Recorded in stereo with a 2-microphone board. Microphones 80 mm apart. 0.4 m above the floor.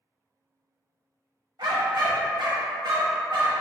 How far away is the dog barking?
About 0.7 m.